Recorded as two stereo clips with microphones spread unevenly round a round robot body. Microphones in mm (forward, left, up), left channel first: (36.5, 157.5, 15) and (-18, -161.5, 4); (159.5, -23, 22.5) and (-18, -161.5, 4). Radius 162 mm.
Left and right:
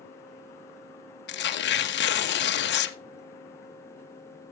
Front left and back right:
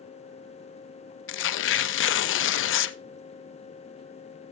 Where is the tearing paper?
30° left, 0.5 m.